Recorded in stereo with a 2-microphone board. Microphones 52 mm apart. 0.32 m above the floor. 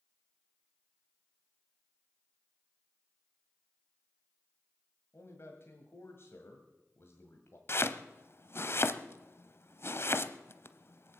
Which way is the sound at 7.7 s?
50° left (ahead or behind).